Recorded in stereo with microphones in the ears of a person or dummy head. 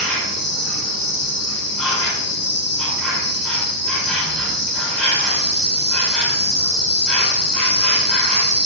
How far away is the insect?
About 1.8 m.